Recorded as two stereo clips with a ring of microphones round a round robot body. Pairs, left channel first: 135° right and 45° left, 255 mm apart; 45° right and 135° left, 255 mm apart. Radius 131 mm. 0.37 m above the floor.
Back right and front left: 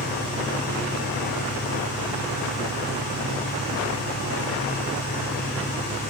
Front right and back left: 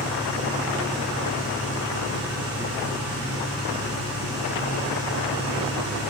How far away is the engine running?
About 6 m.